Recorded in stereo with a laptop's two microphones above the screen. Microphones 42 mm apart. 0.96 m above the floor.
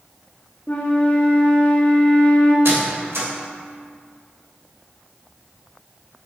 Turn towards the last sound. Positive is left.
turn(degrees=-65)  # may be behind; listen again after turning